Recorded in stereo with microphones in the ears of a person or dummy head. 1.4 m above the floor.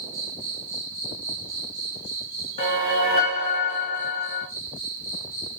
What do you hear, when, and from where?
0.0 s an insect: 25° right (ahead or behind), 2 m
2.6 s a whoosh: 35° left (ahead or behind), 2 m